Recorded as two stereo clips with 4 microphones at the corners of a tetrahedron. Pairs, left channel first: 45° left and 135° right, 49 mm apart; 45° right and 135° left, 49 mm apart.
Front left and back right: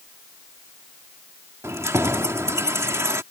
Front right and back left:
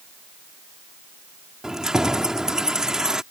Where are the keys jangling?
150° right.